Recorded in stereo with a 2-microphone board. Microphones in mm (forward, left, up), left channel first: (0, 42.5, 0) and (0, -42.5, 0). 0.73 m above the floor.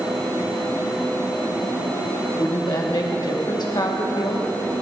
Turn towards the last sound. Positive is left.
turn(degrees=55)  # may be behind; listen again after turning